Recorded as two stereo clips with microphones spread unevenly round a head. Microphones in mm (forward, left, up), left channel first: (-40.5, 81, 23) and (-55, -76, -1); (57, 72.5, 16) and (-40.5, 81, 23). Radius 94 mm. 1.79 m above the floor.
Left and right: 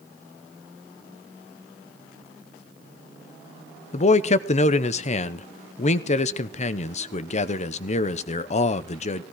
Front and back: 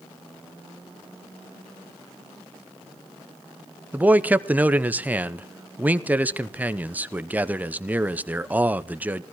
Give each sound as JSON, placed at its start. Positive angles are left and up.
{"t": 3.9, "sound": "a man speaking", "azimuth_deg": 110, "distance_m": 0.8}